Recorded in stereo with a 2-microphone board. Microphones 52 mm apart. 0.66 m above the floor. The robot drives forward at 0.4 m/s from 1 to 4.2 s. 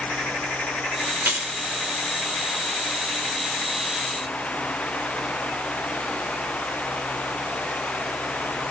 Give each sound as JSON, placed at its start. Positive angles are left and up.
{"t": 1.2, "sound": "keys jangling", "side_deg": -50, "distance_m": 1.5}